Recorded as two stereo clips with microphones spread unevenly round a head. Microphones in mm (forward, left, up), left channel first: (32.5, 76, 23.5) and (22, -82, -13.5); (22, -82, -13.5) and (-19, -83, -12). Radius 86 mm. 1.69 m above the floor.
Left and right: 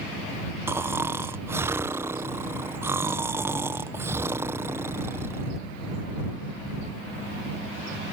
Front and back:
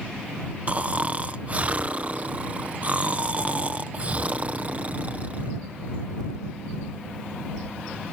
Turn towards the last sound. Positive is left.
turn(degrees=180)